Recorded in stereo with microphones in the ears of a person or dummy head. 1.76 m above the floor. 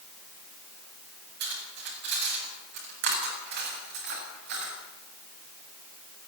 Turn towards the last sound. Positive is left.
turn(degrees=-70)  # may be behind; listen again after turning